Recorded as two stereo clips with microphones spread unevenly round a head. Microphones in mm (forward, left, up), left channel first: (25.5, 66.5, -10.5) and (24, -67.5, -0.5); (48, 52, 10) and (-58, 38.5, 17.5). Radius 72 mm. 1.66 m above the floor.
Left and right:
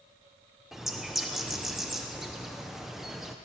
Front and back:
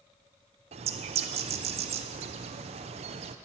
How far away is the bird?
About 0.7 m.